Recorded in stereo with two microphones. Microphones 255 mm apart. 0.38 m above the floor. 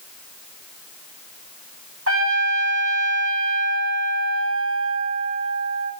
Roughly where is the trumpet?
Right.